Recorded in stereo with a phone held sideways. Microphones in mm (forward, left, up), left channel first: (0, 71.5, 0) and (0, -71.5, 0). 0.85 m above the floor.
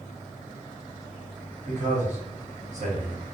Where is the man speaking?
55° right (ahead or behind), 1.5 m.